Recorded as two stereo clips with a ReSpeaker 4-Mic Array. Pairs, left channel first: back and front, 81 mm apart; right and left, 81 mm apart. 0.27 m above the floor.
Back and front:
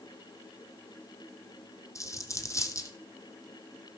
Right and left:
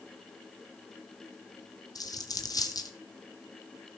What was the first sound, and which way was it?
A dropped coin, 130° right.